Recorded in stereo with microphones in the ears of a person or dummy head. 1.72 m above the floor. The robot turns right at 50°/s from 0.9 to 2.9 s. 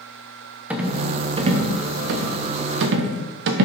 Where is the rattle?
10° right (ahead or behind), 0.9 m; by 3.6 s 65° right (ahead or behind), 0.9 m.